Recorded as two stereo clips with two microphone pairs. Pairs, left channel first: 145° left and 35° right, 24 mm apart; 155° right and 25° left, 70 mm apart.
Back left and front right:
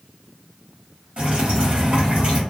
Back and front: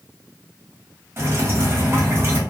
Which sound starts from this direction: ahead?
Dripping, at 1.2 s.